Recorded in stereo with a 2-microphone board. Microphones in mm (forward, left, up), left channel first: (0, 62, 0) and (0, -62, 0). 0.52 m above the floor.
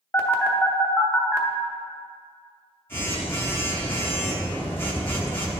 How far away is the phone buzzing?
About 0.8 m.